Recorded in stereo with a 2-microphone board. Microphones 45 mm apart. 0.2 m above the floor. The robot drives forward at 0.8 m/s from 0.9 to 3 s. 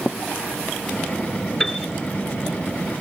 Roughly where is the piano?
Centre.